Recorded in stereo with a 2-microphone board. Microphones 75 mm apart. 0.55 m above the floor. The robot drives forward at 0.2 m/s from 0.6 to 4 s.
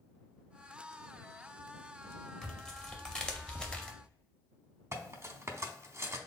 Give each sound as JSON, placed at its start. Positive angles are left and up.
{"t": 2.4, "sound": "tearing paper", "side_deg": 10, "distance_m": 0.8}
{"t": 4.9, "sound": "cutlery clinking", "side_deg": -40, "distance_m": 0.6}